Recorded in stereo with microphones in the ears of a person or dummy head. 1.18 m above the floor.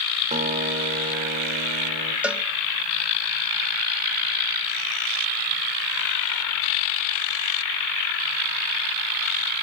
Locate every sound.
0.3 s a guitar: 35° right (ahead or behind), 1.8 m
2.2 s a cowbell: 5° right (ahead or behind), 0.8 m